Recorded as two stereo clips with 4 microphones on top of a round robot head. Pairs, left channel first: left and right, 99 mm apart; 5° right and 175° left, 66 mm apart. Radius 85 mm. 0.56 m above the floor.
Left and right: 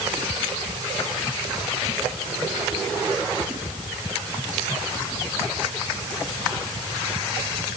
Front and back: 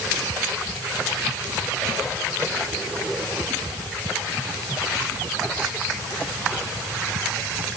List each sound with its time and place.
Only background noise.